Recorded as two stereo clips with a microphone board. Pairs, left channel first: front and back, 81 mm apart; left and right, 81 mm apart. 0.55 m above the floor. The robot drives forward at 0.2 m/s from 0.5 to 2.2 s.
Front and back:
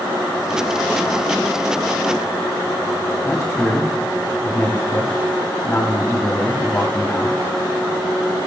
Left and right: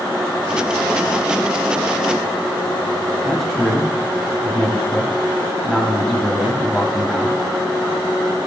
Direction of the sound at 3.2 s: 5° left.